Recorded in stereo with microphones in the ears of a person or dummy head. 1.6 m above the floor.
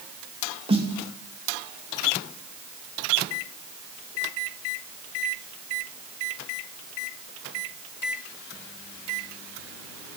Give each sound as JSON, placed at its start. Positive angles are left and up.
{"t": 0.7, "sound": "a snare drum", "side_deg": -30, "distance_m": 3.5}